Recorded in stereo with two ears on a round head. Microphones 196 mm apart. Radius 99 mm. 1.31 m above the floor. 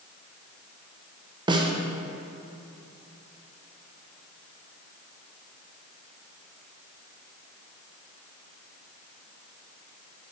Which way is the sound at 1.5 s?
20° right (ahead or behind).